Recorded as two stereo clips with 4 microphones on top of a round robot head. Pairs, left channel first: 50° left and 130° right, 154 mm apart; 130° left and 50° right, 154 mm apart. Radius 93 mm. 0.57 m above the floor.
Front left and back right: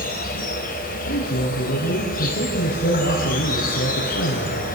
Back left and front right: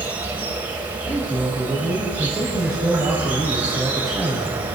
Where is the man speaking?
40° left, 5 m.